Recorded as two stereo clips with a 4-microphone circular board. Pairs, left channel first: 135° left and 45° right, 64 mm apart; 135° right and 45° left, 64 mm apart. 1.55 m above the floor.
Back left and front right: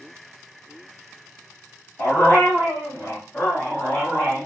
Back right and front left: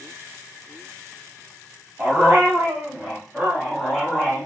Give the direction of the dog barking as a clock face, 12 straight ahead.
9 o'clock.